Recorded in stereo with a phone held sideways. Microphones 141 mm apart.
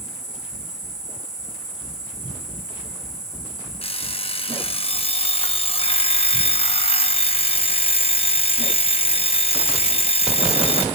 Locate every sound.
0.0 s an insect: 5° right (ahead or behind), 7 m
3.8 s an alarm clock: 45° left (ahead or behind), 0.8 m